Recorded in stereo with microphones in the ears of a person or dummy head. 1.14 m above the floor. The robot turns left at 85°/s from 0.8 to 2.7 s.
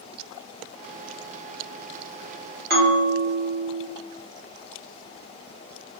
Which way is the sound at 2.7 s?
45° right (ahead or behind).